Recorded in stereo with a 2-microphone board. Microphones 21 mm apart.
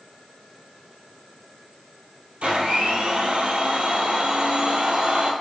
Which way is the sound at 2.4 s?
70° right (ahead or behind).